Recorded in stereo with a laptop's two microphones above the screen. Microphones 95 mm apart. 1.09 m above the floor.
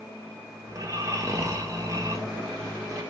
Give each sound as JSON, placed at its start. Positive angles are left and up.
{"t": 0.7, "sound": "snoring", "side_deg": -35, "distance_m": 0.9}